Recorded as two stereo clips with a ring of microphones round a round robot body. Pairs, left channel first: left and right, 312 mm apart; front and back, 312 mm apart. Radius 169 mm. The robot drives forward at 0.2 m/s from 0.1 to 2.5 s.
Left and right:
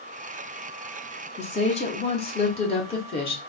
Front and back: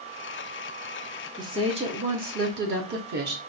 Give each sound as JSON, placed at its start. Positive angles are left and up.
{"t": 1.4, "sound": "a woman speaking", "azimuth_deg": 120, "distance_m": 0.6}